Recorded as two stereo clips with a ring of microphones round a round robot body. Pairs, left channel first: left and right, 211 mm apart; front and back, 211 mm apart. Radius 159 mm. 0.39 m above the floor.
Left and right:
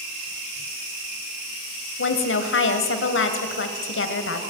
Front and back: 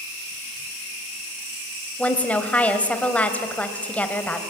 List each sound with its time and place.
2.0 s a woman speaking: 85° left, 2.5 m